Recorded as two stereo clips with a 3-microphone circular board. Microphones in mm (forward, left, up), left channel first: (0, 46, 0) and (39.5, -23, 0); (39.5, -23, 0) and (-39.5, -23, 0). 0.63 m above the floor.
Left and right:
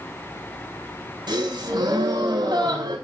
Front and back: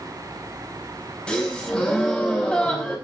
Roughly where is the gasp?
Right.